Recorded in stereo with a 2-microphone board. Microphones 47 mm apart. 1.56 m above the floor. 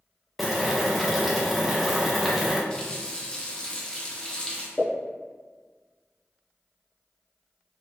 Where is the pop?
40° left (ahead or behind), 0.8 m.